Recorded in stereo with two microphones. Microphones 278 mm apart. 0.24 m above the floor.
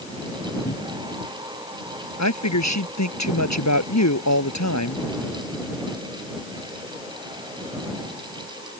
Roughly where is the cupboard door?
Left.